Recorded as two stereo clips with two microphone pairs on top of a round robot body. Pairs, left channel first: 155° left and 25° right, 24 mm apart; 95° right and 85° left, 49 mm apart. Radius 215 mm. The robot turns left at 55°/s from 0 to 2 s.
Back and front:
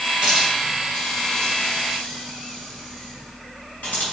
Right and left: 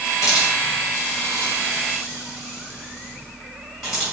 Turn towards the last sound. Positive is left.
turn(degrees=175)